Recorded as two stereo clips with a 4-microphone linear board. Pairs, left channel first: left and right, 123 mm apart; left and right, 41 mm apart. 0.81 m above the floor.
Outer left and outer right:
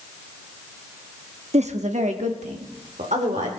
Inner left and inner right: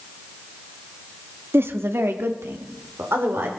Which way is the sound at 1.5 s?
65° right (ahead or behind).